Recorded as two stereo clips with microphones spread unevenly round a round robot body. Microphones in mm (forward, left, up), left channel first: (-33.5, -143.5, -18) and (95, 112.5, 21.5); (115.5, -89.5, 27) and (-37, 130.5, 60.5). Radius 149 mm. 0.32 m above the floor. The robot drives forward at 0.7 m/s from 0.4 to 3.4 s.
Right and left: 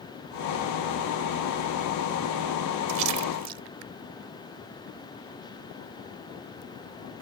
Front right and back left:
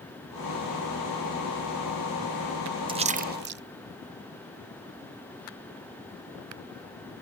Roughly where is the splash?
Ahead left.